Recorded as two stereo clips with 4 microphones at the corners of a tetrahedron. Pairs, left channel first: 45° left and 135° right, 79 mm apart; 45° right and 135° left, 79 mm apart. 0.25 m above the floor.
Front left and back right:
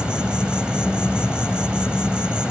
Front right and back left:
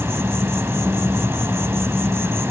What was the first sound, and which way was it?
An insect, 155° left.